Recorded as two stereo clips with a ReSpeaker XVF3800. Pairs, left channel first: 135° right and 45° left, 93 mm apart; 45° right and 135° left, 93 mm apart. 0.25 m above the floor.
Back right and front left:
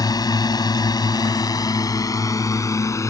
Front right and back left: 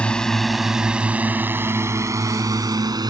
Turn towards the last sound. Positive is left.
turn(degrees=170)